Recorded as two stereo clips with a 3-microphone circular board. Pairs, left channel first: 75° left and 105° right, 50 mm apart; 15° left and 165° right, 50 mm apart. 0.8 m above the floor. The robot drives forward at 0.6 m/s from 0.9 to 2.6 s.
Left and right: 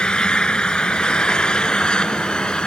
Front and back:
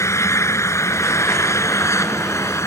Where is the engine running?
5° left.